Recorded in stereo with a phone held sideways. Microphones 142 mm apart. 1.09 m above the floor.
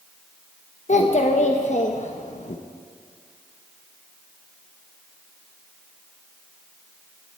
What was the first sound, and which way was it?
A child speaking, 55° left (ahead or behind).